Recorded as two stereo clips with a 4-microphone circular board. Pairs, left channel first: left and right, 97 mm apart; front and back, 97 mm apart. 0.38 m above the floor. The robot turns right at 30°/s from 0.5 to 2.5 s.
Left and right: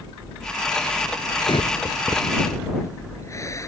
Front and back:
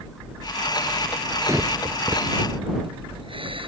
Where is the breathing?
120° left; by 3.7 s 150° left.